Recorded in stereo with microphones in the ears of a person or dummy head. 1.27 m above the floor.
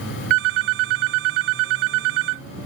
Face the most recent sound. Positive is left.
turn(degrees=-80)